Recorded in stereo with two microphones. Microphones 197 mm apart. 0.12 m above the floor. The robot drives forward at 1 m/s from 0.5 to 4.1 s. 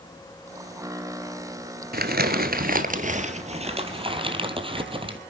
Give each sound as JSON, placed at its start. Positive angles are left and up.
{"t": 1.9, "sound": "crumpling", "side_deg": -50, "distance_m": 1.4}